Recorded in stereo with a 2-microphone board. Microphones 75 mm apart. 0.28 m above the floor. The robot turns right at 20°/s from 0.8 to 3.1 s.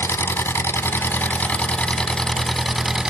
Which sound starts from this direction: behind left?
An engine running, at 0.0 s.